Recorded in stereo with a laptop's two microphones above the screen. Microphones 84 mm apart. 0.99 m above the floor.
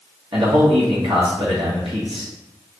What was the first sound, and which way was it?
A man speaking, 70° right (ahead or behind).